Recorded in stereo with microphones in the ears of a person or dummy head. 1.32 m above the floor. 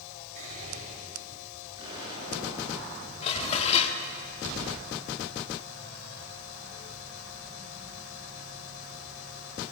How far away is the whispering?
About 4.5 m.